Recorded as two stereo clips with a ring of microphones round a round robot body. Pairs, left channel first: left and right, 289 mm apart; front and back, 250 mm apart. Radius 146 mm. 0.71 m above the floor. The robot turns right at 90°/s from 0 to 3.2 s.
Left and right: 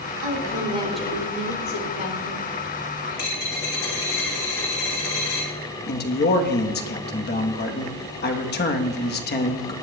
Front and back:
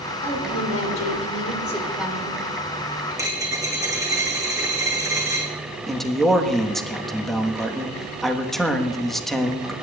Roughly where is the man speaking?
Left.